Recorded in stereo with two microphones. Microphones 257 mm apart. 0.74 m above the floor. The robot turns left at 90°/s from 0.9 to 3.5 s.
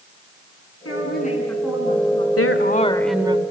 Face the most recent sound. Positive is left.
turn(degrees=-35)